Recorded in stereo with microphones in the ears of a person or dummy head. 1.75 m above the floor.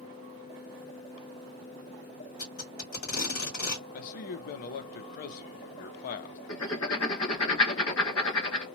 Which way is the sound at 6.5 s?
80° left.